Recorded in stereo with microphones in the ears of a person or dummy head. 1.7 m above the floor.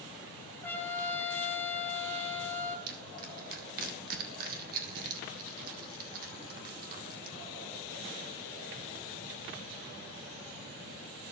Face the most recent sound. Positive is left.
turn(degrees=-50)  # may be behind; listen again after turning